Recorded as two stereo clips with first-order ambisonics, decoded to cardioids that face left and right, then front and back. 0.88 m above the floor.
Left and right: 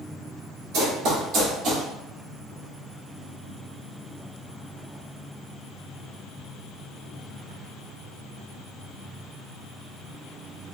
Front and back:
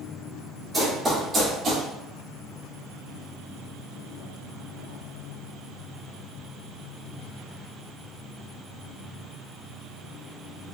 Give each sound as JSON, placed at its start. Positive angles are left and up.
{"t": 0.7, "sound": "running footsteps", "azimuth_deg": -100, "distance_m": 1.7}